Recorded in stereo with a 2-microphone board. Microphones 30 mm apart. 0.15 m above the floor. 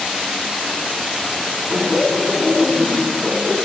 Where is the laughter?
10° right (ahead or behind), 1.6 m.